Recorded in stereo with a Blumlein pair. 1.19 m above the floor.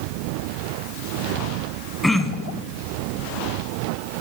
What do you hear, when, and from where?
2.0 s throat clearing: 5° left, 1.3 m